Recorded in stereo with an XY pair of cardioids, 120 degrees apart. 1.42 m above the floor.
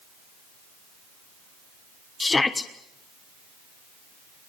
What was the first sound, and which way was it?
A shout, 20° left.